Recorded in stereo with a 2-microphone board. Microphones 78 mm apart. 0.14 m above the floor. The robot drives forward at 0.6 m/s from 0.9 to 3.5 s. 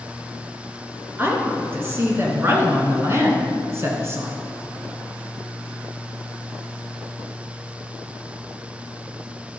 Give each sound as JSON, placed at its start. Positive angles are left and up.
{"t": 1.2, "sound": "a woman speaking", "side_deg": -25, "distance_m": 2.0}